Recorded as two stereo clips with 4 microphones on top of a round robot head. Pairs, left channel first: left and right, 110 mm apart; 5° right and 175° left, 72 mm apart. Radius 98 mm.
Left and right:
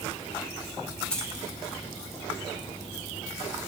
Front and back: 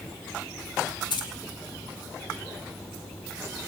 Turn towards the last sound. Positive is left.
turn(degrees=5)